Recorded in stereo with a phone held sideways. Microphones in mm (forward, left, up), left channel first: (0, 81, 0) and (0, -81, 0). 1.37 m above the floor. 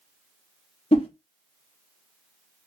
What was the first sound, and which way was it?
A whoosh, 40° left (ahead or behind).